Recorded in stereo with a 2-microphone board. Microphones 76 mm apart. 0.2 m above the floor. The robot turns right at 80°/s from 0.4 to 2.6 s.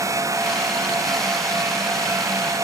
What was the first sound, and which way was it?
Only background noise.